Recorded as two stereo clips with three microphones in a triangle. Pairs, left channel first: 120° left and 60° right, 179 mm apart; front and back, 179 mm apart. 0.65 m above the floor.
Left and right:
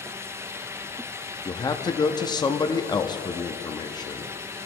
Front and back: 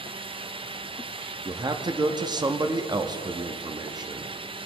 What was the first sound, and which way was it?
A man speaking, 150° left.